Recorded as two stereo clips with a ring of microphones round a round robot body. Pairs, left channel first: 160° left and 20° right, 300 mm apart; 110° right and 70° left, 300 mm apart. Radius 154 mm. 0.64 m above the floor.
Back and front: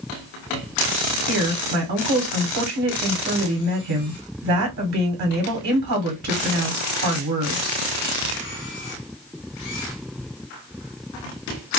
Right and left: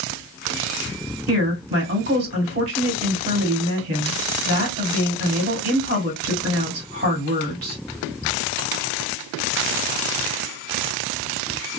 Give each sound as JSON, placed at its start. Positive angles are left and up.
{"t": 1.3, "sound": "a woman speaking", "azimuth_deg": 10, "distance_m": 1.7}